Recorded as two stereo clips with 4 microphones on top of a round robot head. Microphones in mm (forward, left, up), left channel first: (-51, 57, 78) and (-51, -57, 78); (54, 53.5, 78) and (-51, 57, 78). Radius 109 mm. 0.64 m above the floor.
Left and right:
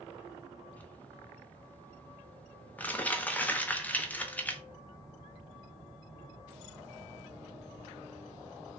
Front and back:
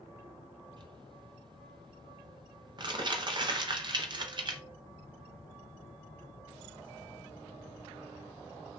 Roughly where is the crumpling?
Behind.